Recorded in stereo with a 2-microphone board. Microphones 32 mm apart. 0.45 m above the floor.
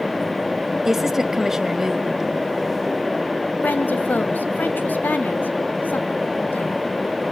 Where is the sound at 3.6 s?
70° left (ahead or behind), 2.5 m.